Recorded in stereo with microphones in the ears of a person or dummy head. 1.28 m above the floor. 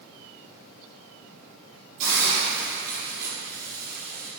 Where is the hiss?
50° right (ahead or behind), 3 m.